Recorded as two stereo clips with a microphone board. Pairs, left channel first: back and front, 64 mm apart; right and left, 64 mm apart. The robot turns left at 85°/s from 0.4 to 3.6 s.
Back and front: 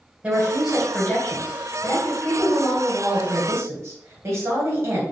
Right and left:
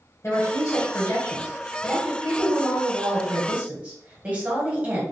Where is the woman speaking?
60° right, 2.0 m; by 5.0 s 25° left, 2.0 m.